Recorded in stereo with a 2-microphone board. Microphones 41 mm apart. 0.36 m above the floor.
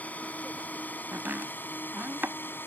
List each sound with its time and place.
0.0 s a drone: 40° left (ahead or behind); by 2.7 s 60° left (ahead or behind)
1.1 s chopping: 60° right (ahead or behind)